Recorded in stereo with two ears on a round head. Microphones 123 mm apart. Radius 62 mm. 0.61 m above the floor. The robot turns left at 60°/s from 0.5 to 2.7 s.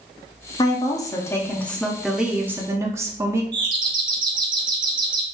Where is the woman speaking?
30° left (ahead or behind), 0.8 m; by 3.4 s 20° right (ahead or behind), 0.8 m.